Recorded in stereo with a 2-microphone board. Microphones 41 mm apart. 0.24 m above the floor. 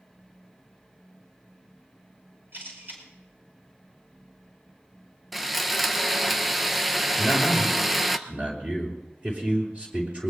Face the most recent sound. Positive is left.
turn(degrees=-30)  # may be behind; listen again after turning